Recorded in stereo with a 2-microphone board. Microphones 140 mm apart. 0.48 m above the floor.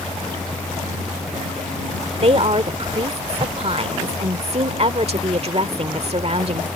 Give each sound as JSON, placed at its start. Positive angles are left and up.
{"t": 2.2, "sound": "a woman speaking", "side_deg": -50}